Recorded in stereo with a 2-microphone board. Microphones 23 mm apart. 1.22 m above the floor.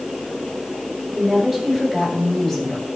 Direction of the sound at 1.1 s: 15° right (ahead or behind).